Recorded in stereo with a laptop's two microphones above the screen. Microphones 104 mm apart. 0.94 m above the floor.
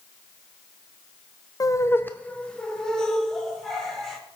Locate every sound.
1.6 s laughter: 35° left (ahead or behind), 0.5 m; by 4.2 s 5° left (ahead or behind), 2.5 m